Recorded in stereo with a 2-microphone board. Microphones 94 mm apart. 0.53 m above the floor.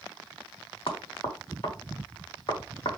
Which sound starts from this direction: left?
Knocking, at 0.9 s.